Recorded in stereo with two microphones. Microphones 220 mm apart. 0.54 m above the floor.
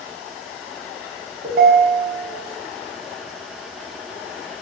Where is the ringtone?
45° right (ahead or behind), 0.6 m.